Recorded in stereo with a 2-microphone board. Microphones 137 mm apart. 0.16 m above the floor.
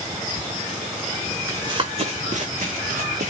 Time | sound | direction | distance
1.5 | running footsteps | 25° right (ahead or behind) | 0.7 m